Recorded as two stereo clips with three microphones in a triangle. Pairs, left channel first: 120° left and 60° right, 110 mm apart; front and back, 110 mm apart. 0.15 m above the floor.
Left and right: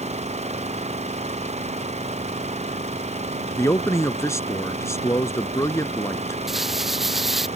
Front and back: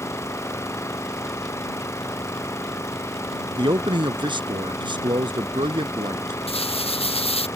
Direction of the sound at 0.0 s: 65° right.